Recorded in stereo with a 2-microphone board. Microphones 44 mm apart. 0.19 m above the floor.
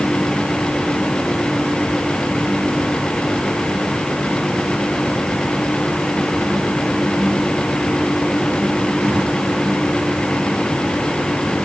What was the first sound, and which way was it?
Only background noise.